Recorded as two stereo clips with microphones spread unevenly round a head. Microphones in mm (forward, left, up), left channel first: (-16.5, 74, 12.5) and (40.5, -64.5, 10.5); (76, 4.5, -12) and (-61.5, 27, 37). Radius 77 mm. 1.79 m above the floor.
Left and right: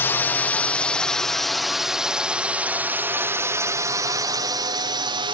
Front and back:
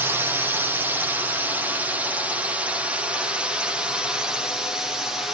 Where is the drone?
65° left; by 5.3 s 70° right.